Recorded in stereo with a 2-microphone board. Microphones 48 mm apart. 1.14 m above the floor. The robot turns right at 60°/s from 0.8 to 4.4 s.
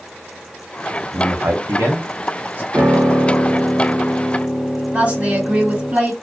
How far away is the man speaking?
About 0.7 m.